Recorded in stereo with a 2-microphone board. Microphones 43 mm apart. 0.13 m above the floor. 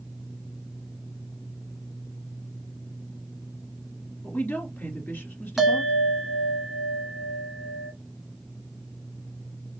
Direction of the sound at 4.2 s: 50° left (ahead or behind).